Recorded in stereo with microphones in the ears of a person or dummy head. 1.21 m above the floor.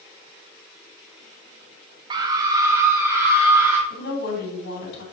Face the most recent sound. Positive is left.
turn(degrees=60)  # may be behind; listen again after turning